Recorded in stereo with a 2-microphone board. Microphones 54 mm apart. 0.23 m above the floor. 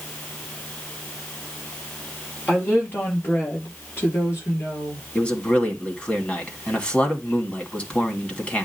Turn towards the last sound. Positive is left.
turn(degrees=25)  # may be behind; listen again after turning